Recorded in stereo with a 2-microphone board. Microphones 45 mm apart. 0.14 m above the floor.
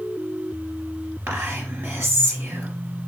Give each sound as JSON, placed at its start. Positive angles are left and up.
{"t": 1.3, "sound": "whispering", "side_deg": -50, "distance_m": 2.5}